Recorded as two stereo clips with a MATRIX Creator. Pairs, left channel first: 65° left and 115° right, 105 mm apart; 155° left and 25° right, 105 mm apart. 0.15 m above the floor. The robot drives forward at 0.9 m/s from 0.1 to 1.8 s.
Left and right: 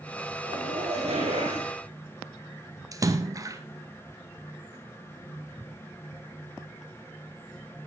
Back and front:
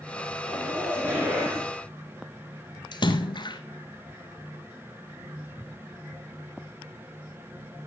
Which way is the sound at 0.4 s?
90° right.